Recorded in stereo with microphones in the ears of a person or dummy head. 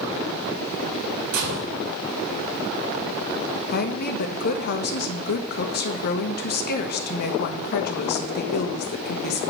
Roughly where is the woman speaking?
Left.